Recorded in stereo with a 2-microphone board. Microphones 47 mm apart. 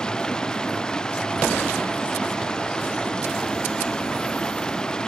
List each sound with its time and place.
0.0 s running water: 15° left (ahead or behind)